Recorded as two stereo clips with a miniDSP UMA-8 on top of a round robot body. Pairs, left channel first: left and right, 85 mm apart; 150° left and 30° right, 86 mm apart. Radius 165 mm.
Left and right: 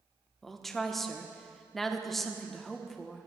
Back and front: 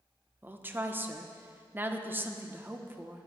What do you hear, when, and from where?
0.4 s a woman speaking: 5° left, 1.1 m